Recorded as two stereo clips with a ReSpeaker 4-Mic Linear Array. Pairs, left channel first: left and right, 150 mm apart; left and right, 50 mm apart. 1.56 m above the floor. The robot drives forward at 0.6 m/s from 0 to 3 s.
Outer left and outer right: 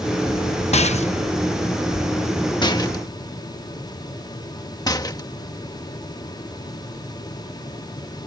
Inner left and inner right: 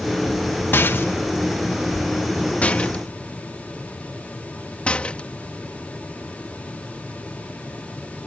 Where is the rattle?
45° left (ahead or behind); by 5.3 s 25° left (ahead or behind).